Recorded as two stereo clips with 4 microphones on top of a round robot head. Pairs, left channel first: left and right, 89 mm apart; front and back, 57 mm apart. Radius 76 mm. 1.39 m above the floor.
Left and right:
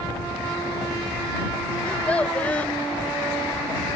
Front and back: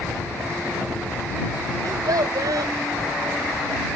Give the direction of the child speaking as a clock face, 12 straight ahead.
6 o'clock.